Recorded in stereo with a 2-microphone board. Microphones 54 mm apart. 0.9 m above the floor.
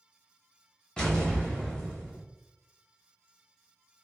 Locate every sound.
1.0 s an explosion: 15° left (ahead or behind), 0.9 m